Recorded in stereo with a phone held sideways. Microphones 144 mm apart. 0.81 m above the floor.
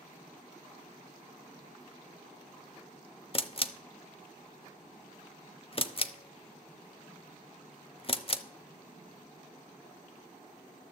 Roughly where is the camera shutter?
Left.